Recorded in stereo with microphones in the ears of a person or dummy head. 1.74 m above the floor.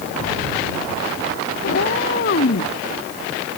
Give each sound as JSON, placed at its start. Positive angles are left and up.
{"t": 1.6, "sound": "a cat meowing", "side_deg": 60}